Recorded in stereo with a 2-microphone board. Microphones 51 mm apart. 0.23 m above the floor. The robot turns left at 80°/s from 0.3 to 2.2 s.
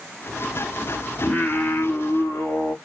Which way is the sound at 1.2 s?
155° left.